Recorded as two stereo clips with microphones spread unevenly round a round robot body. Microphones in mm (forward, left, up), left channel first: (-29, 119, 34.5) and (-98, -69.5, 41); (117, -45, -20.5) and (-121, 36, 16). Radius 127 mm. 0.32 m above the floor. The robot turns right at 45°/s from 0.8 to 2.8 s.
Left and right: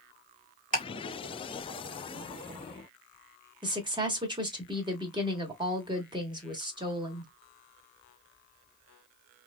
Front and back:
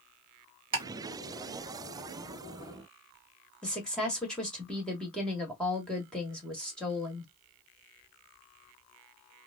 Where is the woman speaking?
80° right, 1.1 m.